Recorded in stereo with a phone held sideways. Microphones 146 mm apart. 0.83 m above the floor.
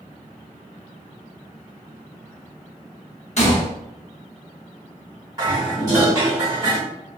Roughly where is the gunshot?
Left.